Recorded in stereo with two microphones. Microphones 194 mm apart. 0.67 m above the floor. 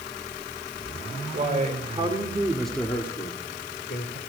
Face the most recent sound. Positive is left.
turn(degrees=60)  # may be behind; listen again after turning